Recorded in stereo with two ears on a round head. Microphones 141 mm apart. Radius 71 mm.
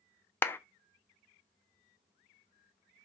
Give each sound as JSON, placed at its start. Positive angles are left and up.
{"t": 0.4, "sound": "a clap", "side_deg": 15, "distance_m": 0.5}